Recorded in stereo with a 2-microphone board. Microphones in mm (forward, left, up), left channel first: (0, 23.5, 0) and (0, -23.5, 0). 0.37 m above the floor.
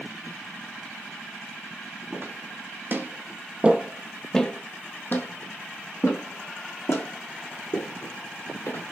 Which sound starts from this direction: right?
Footsteps, at 2.1 s.